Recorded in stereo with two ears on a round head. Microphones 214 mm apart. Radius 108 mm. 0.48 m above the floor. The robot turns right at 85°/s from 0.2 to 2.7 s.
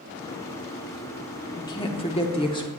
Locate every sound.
1.6 s a woman speaking: 15° left (ahead or behind), 0.8 m